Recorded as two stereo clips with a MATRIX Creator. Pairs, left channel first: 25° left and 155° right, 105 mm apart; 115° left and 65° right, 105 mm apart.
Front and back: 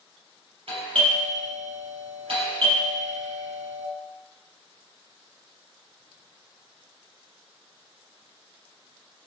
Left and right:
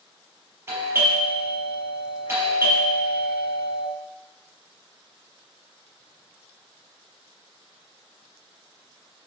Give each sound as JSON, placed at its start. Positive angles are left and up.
{"t": 0.7, "sound": "a doorbell", "azimuth_deg": -130, "distance_m": 6.0}